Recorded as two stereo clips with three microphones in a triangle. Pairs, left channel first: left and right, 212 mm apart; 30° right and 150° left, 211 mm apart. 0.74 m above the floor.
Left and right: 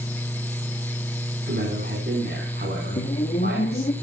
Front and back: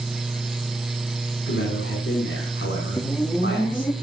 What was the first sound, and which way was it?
A man speaking, 50° right.